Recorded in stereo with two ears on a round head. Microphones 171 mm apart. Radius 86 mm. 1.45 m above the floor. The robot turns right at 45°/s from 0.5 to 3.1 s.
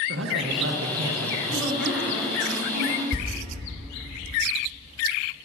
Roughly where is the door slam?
Left.